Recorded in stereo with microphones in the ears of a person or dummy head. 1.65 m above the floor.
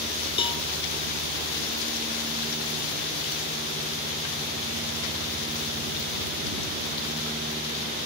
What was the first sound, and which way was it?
A cowbell, 30° left (ahead or behind).